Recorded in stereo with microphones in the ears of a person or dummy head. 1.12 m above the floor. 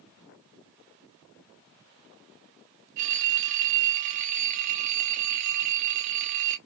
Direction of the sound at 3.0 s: 40° right (ahead or behind).